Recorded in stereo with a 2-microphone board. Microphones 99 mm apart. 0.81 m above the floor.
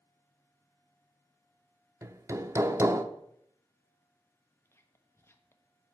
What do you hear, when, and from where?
2.0 s hammering: 30° right (ahead or behind), 0.8 m
4.7 s whispering: 25° left (ahead or behind), 1.3 m